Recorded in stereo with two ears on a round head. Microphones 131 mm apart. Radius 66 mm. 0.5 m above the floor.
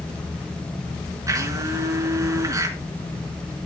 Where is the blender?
25° right (ahead or behind), 4.5 m.